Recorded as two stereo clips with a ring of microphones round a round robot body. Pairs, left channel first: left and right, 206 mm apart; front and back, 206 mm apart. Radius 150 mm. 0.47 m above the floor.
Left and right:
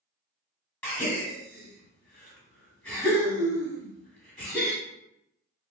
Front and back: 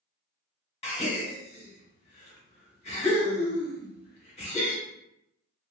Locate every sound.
0.8 s a gasp: 15° left, 1.2 m